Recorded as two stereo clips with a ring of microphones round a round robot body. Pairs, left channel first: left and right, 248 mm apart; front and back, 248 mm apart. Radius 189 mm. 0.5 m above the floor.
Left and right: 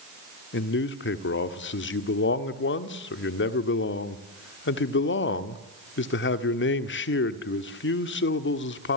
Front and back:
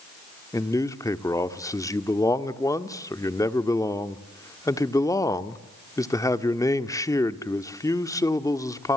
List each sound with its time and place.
0.5 s a man speaking: 75° left, 1.6 m